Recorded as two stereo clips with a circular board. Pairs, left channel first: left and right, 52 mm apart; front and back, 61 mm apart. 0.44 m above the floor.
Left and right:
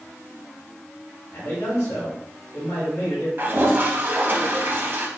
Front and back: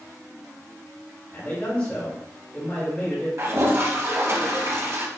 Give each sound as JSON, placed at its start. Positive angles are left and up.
{"t": 1.3, "sound": "a man speaking", "azimuth_deg": 55, "distance_m": 1.9}
{"t": 3.4, "sound": "a toilet flushing", "azimuth_deg": -135, "distance_m": 0.8}